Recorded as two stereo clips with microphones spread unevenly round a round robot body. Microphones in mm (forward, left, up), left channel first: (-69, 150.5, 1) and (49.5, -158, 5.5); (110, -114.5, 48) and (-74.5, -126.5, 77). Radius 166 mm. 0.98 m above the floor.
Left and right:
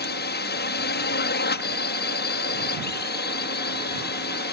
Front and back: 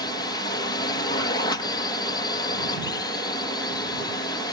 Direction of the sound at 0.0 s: 60° left.